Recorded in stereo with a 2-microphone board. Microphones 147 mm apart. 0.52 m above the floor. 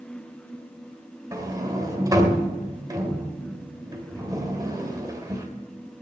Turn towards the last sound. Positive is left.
turn(degrees=-25)  # may be behind; listen again after turning